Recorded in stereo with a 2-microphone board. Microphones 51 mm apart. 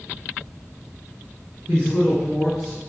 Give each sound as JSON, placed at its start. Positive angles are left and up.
{"t": 1.7, "sound": "a man speaking", "side_deg": 25, "distance_m": 2.0}